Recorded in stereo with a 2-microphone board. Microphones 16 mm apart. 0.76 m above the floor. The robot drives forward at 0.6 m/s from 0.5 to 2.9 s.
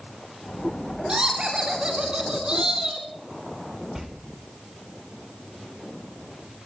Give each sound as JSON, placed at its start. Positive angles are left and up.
{"t": 1.1, "sound": "laughter", "side_deg": -65, "distance_m": 2.5}
{"t": 4.0, "sound": "a door slam", "side_deg": -20, "distance_m": 1.7}